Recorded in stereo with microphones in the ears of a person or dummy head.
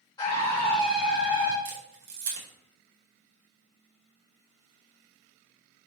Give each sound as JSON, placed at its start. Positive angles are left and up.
{"t": 0.2, "sound": "a scream", "side_deg": 20, "distance_m": 2.0}
{"t": 1.6, "sound": "a camera shutter", "side_deg": -65, "distance_m": 2.5}